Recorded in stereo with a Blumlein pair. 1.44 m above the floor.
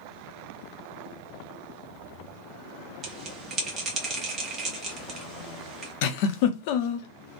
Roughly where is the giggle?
Ahead left.